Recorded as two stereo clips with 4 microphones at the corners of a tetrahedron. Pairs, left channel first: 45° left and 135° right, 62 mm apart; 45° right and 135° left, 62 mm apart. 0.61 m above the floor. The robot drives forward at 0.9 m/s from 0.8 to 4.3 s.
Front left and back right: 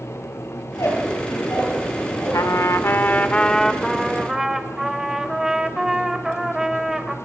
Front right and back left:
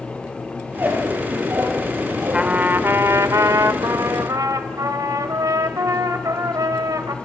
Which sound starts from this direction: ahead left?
A trumpet, at 2.3 s.